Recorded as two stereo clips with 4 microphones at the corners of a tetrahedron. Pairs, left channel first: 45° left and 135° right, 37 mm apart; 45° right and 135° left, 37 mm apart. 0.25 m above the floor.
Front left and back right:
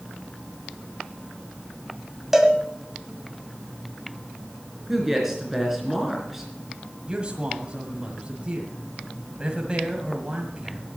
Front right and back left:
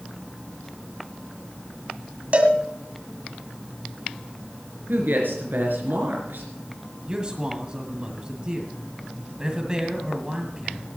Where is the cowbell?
150° left, 1.4 m.